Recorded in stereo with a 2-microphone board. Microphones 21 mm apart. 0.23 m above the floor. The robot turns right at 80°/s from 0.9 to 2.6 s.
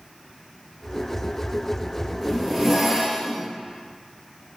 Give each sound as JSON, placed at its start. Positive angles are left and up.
{"t": 2.2, "sound": "a zipper", "azimuth_deg": 160, "distance_m": 1.1}